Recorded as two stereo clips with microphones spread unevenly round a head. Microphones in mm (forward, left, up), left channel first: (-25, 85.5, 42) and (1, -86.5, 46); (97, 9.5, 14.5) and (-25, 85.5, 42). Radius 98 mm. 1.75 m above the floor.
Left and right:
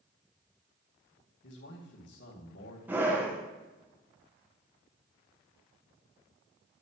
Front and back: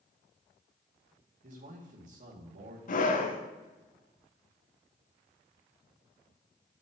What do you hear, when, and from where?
1.4 s a man speaking: 120° left, 2 m
2.9 s a scream: straight ahead, 1.2 m